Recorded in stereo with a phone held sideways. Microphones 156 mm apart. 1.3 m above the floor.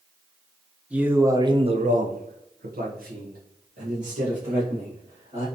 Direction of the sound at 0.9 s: 10° right (ahead or behind).